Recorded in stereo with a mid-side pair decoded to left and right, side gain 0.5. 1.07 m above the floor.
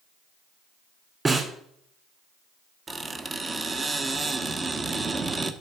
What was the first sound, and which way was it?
A snare drum, 25° right.